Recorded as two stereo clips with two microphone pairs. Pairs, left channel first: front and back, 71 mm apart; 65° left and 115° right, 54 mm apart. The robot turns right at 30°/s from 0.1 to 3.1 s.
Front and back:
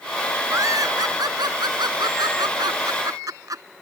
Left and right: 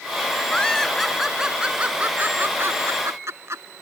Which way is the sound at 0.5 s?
140° left.